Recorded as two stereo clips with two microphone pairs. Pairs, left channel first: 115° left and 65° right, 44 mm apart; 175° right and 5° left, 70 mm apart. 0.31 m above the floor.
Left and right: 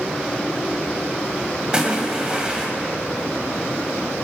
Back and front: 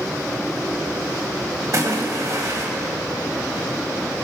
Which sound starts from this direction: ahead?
A splash, at 1.7 s.